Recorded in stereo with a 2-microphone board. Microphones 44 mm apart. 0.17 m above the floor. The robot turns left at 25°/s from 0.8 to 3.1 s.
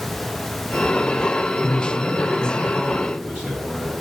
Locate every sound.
1.6 s a man speaking: 15° left, 3 m; by 3.9 s 25° right, 3 m